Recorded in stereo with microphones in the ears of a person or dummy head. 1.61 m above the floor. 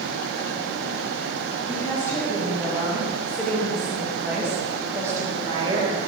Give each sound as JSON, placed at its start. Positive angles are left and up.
{"t": 1.7, "sound": "a woman speaking", "side_deg": 15, "distance_m": 3.5}